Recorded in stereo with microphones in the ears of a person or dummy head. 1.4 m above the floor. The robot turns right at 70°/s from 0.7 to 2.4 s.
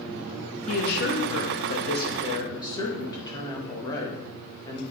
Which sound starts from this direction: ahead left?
A woman speaking, at 0.7 s.